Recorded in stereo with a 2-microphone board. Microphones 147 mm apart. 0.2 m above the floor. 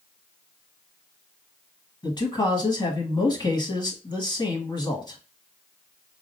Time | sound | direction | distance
2.0 | a man speaking | 30° left (ahead or behind) | 1.1 m